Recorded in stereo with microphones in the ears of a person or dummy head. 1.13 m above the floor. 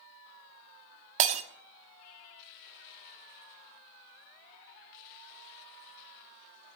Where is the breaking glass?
40° right (ahead or behind), 0.9 m.